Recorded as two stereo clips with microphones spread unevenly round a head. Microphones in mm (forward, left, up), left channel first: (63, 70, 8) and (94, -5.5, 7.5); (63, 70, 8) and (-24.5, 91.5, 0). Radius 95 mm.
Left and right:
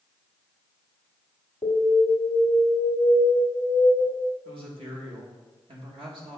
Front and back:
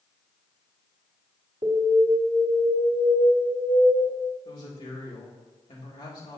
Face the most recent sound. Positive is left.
turn(degrees=-70)